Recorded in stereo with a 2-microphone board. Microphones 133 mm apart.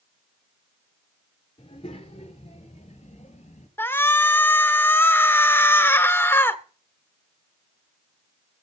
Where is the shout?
15° left (ahead or behind), 1.4 m.